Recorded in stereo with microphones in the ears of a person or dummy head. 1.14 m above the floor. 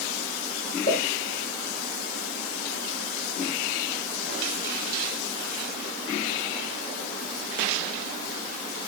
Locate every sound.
0.9 s a pop: 30° left (ahead or behind), 1.6 m